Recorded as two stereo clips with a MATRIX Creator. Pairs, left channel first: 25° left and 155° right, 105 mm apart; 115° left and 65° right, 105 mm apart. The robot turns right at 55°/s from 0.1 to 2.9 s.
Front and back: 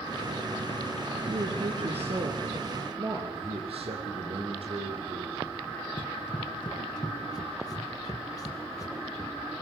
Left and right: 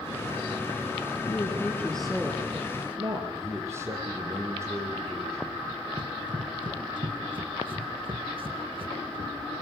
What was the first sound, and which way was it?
A woman speaking, 160° left.